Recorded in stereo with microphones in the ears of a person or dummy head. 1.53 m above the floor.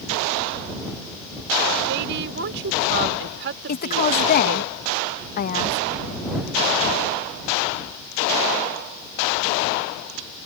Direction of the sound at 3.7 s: 45° left (ahead or behind).